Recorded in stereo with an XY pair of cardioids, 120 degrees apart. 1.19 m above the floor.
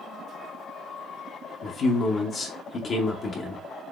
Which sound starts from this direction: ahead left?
A man speaking, at 1.6 s.